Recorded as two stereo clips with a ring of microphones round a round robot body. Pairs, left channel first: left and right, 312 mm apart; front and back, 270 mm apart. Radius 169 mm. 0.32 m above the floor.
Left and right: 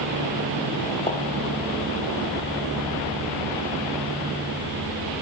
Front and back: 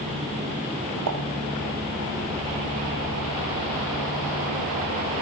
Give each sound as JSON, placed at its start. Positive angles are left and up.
{"t": 1.1, "sound": "a pop", "azimuth_deg": 165, "distance_m": 3.5}